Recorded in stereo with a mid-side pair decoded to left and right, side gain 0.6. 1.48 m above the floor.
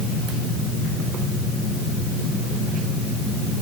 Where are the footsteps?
No footsteps in this recording.